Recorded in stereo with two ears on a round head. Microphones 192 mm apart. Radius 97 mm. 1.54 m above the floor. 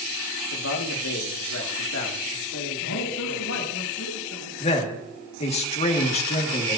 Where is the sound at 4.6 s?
30° left (ahead or behind), 2 m.